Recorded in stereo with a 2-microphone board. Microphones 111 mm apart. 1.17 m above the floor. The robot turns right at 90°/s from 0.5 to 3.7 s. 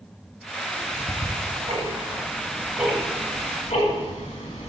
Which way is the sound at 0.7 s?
10° left (ahead or behind).